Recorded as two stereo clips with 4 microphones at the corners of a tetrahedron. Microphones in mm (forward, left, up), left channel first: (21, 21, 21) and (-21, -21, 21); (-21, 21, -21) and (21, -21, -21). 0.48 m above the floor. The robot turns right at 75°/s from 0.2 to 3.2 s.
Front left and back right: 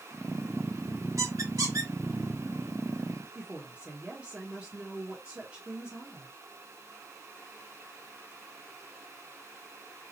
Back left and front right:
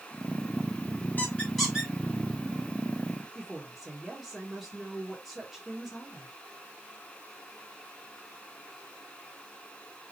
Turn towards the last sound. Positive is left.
turn(degrees=-130)